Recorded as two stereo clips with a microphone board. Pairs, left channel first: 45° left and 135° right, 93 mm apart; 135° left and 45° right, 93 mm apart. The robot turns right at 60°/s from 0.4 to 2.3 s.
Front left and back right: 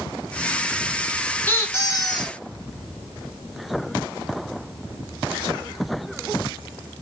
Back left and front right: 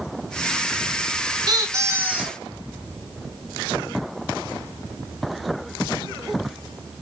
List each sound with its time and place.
1.5 s a squeak: 15° right, 0.6 m; by 2.4 s 35° left, 0.6 m